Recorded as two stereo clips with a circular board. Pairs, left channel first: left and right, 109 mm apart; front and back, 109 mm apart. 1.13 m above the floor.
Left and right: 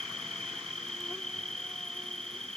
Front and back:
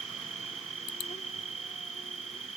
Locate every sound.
0.0 s an insect: 5° left